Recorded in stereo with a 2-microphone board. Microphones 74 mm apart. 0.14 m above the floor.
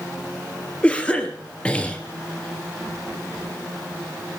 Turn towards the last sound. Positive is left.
turn(degrees=15)  # may be behind; listen again after turning